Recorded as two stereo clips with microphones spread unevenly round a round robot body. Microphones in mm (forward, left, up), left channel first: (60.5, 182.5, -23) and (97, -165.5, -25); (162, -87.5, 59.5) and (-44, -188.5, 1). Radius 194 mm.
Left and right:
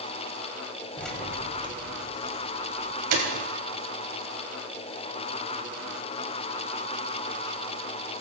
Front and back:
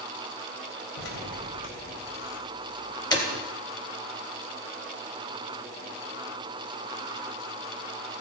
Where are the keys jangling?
10° left, 3.5 m; by 3.3 s 55° right, 3.5 m.